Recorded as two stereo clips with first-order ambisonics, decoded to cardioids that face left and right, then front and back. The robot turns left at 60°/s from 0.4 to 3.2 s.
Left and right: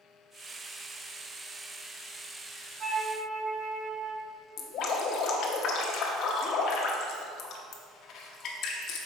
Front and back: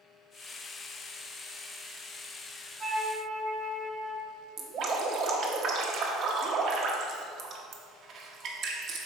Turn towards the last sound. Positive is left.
turn(degrees=130)